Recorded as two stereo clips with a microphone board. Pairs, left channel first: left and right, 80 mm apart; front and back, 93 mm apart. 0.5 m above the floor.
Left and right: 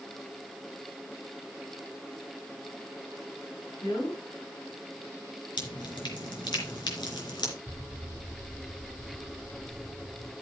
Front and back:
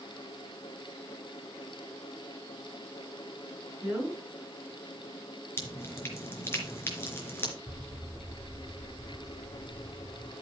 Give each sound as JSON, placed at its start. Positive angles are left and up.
{"t": 3.8, "sound": "a woman speaking", "azimuth_deg": 105, "distance_m": 8.5}
{"t": 5.6, "sound": "dripping", "azimuth_deg": 65, "distance_m": 3.5}
{"t": 7.7, "sound": "an explosion", "azimuth_deg": -50, "distance_m": 1.2}